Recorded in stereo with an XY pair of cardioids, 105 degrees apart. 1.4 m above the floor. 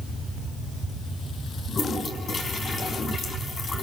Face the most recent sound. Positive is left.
turn(degrees=40)